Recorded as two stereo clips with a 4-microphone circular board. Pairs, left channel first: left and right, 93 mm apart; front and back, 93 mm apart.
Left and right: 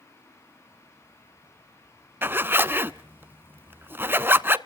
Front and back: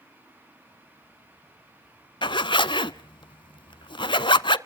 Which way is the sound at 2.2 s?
25° right.